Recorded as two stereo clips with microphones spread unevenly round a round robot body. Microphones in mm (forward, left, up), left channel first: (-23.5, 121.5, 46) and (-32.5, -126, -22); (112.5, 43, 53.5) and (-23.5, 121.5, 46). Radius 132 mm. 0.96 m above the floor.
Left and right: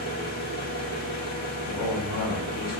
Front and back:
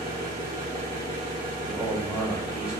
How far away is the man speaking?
About 1.4 m.